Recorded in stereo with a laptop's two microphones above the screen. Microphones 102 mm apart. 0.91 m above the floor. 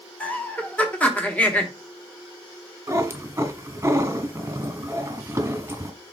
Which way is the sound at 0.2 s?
15° left (ahead or behind).